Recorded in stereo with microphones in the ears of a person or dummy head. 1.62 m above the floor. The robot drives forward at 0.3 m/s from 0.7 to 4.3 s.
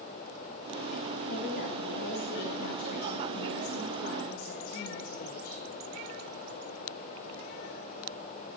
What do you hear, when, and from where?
1.3 s a woman speaking: 60° left (ahead or behind), 7 m; by 5.5 s 55° left (ahead or behind), 7.5 m